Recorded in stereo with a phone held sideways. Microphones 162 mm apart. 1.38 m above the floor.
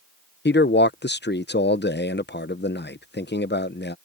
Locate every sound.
0.5 s a man speaking: 85° left